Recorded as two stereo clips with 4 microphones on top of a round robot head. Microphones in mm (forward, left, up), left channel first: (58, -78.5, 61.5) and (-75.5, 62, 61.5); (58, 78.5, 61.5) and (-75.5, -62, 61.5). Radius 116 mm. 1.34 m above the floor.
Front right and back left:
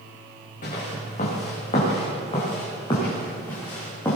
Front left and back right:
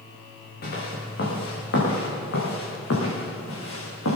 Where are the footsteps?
5° left, 6 m; by 4.2 s 30° left, 6 m.